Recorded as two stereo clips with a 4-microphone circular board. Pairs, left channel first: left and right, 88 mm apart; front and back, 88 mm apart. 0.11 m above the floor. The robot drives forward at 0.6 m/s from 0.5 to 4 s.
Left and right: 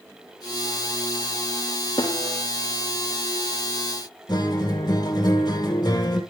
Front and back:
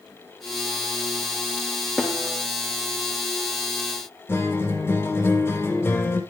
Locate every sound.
2.0 s a snare drum: 100° left, 4 m
4.3 s a guitar: 60° left, 3 m